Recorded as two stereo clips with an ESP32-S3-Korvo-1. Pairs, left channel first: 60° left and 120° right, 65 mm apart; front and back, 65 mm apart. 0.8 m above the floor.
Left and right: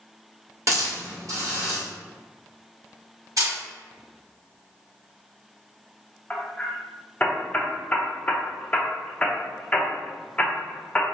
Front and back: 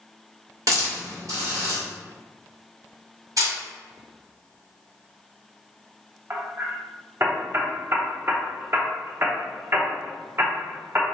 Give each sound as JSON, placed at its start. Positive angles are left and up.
{"t": 0.7, "sound": "a hiss", "azimuth_deg": -155, "distance_m": 1.1}
{"t": 3.4, "sound": "a camera shutter", "azimuth_deg": -155, "distance_m": 1.5}
{"t": 6.3, "sound": "hammering", "azimuth_deg": 130, "distance_m": 0.6}